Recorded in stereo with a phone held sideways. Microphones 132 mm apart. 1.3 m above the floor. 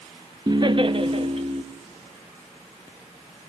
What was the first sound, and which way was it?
Laughter, 30° right (ahead or behind).